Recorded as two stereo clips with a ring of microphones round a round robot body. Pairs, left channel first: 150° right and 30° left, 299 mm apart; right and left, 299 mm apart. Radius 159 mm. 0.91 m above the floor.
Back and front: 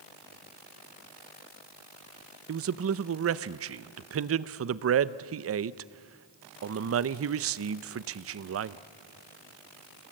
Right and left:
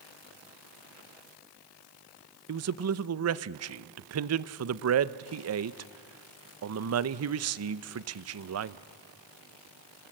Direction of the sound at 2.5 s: 65° left.